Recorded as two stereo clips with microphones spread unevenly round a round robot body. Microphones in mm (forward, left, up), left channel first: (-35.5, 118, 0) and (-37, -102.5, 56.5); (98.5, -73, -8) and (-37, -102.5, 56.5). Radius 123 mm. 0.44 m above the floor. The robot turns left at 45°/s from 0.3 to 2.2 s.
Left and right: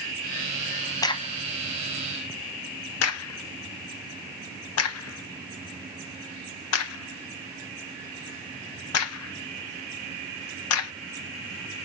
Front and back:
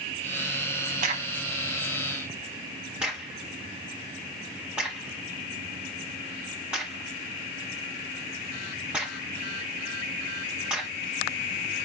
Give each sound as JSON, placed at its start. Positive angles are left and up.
{"t": 1.0, "sound": "a crack", "azimuth_deg": 170, "distance_m": 0.5}